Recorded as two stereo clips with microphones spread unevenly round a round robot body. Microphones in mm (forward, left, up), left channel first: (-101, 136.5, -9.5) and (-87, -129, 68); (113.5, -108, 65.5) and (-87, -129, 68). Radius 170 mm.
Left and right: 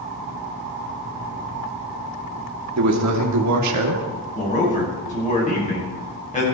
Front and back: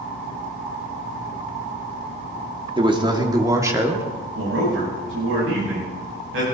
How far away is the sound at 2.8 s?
About 3 m.